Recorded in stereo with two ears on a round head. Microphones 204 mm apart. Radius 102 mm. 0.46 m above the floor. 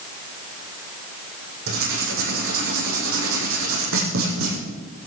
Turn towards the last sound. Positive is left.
turn(degrees=-65)  # may be behind; listen again after turning